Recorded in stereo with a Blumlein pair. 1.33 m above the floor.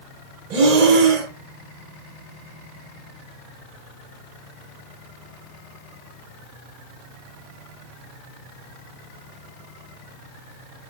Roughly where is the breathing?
Ahead right.